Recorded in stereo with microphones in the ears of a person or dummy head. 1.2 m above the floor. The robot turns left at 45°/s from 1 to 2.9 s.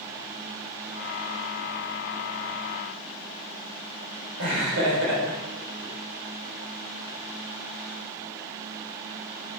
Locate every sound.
4.4 s laughter: 70° right (ahead or behind), 4 m